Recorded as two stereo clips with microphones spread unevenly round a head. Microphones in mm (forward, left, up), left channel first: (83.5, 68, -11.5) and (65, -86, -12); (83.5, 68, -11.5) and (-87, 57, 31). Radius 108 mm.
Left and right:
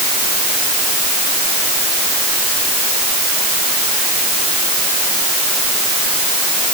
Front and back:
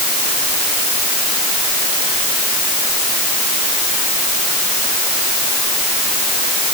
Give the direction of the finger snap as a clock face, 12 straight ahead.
I don't hear a finger snap.